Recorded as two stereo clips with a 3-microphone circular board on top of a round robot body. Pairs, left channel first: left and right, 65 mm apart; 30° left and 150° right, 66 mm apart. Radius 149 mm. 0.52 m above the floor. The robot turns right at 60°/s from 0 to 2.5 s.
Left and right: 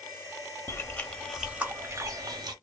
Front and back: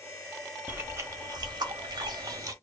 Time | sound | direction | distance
0.7 | chewing | 140° left | 0.6 m